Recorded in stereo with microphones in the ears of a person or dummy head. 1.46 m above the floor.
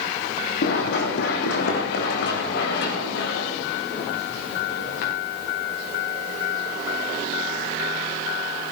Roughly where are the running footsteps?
Left.